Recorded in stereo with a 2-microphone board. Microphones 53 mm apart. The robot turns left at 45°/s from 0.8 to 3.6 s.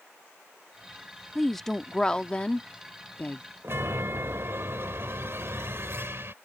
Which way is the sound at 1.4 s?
Centre (ahead or behind).